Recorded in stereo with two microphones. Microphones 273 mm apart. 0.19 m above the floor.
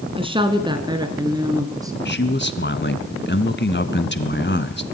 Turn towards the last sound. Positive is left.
turn(degrees=40)  # may be behind; listen again after turning